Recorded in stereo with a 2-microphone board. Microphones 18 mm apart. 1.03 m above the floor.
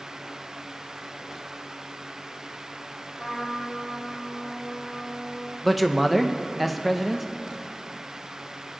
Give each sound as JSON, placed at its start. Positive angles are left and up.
{"t": 3.2, "sound": "a trumpet", "side_deg": 30, "distance_m": 2.0}
{"t": 5.6, "sound": "a man speaking", "side_deg": 0, "distance_m": 0.6}